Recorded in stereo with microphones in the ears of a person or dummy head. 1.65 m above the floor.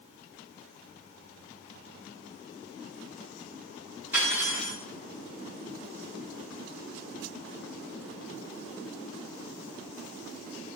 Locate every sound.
4.1 s cutlery clinking: 5° right (ahead or behind), 1.7 m